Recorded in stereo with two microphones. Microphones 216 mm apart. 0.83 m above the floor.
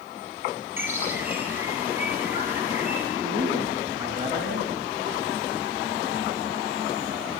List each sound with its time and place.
0.8 s a bird: 10° right (ahead or behind), 6.5 m
3.2 s a man speaking: 15° right (ahead or behind), 7 m